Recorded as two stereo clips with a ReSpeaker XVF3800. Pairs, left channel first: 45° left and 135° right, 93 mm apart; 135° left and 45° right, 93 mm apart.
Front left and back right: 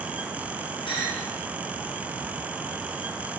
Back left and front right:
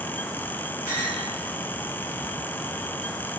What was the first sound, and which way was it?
A clink, 15° left.